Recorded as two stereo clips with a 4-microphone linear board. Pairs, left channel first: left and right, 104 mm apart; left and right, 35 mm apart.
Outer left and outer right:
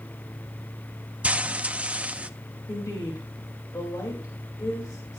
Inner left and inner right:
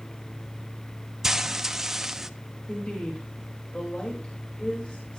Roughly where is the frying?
Centre.